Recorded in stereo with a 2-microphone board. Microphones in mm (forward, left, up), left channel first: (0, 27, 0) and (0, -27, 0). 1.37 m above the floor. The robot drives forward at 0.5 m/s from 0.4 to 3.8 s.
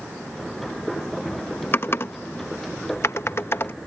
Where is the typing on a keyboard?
45° left (ahead or behind).